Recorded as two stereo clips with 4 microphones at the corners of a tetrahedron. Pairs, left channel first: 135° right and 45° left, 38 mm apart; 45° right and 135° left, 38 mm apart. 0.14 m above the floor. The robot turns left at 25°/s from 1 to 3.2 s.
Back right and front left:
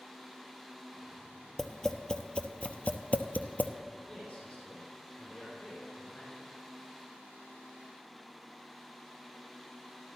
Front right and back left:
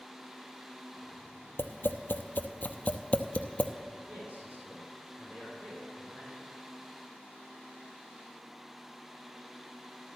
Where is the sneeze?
I don't hear a sneeze.